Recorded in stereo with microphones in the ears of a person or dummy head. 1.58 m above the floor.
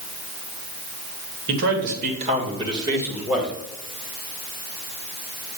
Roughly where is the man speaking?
Right.